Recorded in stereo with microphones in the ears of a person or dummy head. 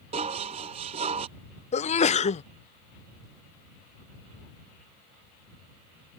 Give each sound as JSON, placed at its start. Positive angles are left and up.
{"t": 0.1, "sound": "dishes clattering", "side_deg": -40}
{"t": 1.7, "sound": "a sneeze", "side_deg": 30}